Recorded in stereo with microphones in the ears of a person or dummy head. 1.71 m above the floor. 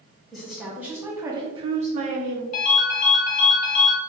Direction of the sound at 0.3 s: Centre (ahead or behind).